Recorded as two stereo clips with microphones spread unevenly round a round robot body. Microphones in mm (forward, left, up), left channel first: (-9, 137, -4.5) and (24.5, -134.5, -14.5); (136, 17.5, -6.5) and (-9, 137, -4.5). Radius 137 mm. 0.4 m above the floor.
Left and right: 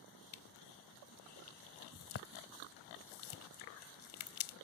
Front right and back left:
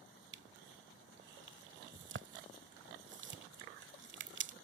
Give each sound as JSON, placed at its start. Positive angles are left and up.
{"t": 0.3, "sound": "crushing", "azimuth_deg": 130}